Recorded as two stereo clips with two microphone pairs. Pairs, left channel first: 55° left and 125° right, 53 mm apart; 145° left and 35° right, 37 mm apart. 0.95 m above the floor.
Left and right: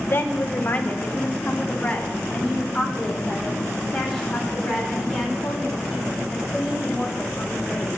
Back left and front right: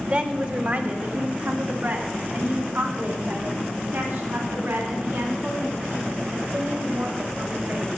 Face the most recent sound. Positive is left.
turn(degrees=-30)